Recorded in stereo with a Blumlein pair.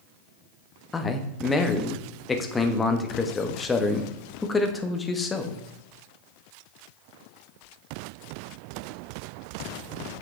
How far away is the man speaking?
About 1.2 m.